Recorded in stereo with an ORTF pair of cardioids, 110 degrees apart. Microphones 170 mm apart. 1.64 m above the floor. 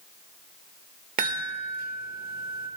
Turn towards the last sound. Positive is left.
turn(degrees=-60)